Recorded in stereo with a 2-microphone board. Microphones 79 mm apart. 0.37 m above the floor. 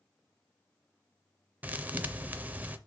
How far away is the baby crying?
I don't hear a baby crying.